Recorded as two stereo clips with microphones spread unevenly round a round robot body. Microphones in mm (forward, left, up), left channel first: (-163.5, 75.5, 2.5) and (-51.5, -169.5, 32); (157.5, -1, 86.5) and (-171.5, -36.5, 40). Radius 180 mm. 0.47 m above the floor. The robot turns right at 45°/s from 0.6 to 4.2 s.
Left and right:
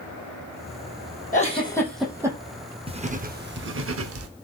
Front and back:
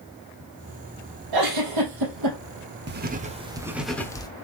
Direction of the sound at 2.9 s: 135° right.